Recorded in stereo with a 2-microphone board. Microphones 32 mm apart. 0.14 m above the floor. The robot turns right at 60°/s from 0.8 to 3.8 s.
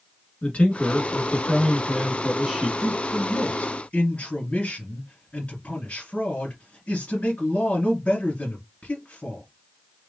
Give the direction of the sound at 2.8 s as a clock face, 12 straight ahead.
12 o'clock.